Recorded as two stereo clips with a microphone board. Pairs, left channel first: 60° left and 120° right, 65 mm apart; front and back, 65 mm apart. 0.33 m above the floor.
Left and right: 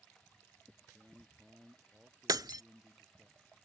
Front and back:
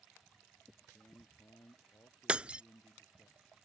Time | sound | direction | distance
0.9 | a man speaking | 40° right | ?
2.3 | breaking glass | 105° right | ?